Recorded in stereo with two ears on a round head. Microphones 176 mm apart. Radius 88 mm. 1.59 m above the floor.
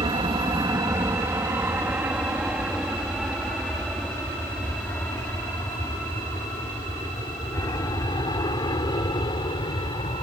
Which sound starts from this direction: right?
An aircraft, at 0.0 s.